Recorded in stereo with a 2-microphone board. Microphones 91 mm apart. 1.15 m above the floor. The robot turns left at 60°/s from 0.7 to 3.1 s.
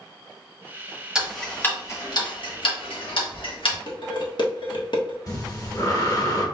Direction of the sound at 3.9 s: 60° left (ahead or behind).